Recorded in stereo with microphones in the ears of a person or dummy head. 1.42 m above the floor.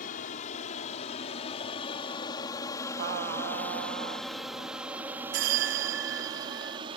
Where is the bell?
65° right (ahead or behind).